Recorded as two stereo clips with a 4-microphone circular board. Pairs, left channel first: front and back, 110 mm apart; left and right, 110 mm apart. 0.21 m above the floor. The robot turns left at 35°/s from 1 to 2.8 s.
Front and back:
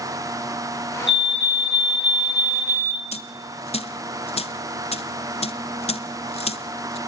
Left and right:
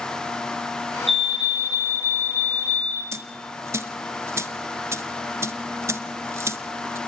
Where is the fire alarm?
Straight ahead, 3 m; by 3.0 s 60° right, 3 m.